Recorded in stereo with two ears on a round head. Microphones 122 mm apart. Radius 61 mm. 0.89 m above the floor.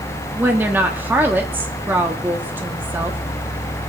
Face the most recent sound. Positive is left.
turn(degrees=-15)  # may be behind; listen again after turning